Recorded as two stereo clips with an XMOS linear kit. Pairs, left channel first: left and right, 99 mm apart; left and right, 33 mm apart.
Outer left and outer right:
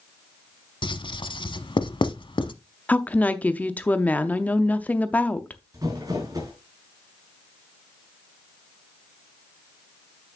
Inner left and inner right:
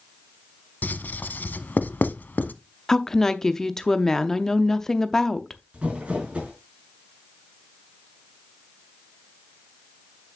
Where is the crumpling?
40° right (ahead or behind), 5 m.